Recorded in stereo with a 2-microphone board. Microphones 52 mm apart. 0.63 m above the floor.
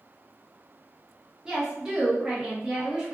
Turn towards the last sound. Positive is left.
turn(degrees=-10)  # may be behind; listen again after turning